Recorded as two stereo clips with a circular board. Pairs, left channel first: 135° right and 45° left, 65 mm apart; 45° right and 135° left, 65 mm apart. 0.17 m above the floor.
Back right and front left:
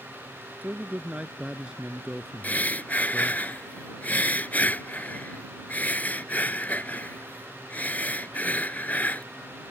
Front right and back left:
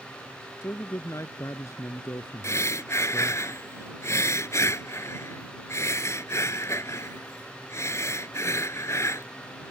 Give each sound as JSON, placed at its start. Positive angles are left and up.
{"t": 0.6, "sound": "a man speaking", "azimuth_deg": -10}
{"t": 2.4, "sound": "breathing", "azimuth_deg": -75}